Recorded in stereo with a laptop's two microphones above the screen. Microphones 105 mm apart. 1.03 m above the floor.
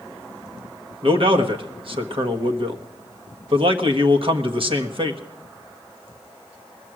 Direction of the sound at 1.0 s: 55° right (ahead or behind).